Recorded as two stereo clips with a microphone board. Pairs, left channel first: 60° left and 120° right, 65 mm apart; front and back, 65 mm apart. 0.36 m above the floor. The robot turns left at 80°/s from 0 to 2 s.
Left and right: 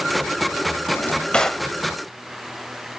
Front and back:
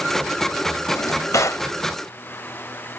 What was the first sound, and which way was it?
A drawer, 25° left.